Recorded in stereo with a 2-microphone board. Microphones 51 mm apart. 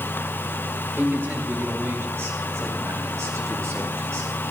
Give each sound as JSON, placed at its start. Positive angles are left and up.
{"t": 1.0, "sound": "a man speaking", "side_deg": -40, "distance_m": 4.0}